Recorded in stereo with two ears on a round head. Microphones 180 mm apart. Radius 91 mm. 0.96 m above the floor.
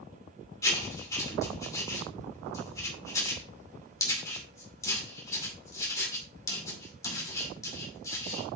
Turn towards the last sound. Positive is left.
turn(degrees=15)  # may be behind; listen again after turning